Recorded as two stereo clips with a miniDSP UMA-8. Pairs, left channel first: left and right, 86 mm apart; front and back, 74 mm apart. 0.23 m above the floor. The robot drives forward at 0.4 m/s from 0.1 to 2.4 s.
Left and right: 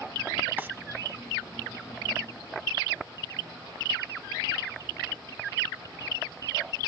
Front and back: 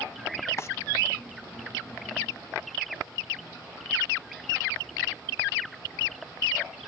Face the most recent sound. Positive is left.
turn(degrees=-140)